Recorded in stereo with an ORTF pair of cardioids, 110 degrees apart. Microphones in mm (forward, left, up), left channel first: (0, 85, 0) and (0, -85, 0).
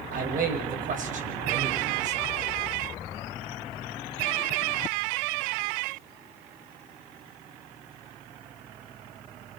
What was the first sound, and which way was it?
A man speaking, 55° right.